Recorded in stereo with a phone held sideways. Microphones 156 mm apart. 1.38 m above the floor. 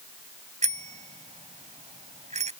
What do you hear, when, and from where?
0.6 s a bicycle bell: 45° right (ahead or behind)